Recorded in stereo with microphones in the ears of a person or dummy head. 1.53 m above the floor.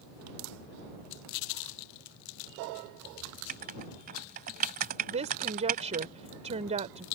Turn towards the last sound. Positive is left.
turn(degrees=-30)  # may be behind; listen again after turning